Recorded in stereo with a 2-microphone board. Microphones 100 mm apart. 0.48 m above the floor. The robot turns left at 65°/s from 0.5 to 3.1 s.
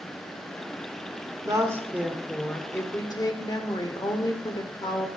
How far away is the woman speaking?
About 1.1 m.